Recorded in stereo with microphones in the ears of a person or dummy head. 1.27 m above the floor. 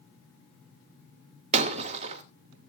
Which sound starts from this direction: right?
Breaking glass, at 1.5 s.